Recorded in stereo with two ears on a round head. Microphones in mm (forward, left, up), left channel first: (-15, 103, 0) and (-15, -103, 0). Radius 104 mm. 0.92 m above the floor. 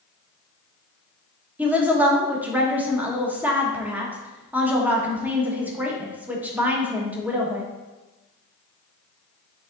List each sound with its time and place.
1.6 s a woman speaking: 5° right (ahead or behind), 1.2 m